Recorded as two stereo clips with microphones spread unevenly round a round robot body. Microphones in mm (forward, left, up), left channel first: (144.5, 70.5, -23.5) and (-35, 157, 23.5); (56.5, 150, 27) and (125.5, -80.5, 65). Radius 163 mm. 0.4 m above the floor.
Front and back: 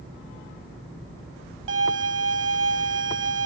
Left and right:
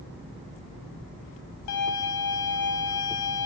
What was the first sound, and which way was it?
A violin, 125° left.